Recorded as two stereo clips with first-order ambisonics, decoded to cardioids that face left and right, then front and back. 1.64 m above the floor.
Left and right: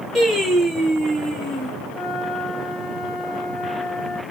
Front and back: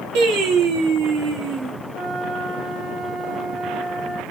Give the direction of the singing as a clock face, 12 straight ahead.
6 o'clock.